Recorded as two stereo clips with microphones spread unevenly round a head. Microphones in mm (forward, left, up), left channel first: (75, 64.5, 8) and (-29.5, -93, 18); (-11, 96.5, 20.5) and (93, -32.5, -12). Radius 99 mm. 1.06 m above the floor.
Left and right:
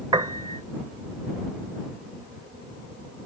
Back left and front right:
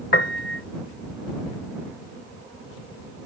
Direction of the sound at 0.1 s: 165° left.